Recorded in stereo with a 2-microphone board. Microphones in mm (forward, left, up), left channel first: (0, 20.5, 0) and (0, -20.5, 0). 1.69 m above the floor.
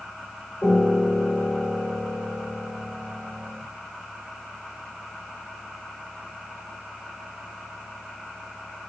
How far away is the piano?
About 3.5 m.